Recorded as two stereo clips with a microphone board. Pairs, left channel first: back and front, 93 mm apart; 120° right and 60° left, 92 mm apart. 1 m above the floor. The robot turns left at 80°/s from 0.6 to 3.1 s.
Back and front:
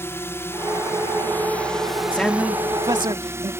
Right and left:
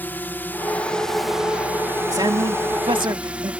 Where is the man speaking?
105° left; by 3.5 s 25° left.